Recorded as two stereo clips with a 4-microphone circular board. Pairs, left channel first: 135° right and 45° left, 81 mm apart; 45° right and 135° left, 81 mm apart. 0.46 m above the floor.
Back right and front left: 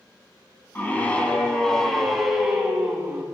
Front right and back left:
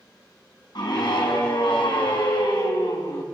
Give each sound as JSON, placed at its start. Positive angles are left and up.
{"t": 0.8, "sound": "a scream", "azimuth_deg": -70, "distance_m": 4.0}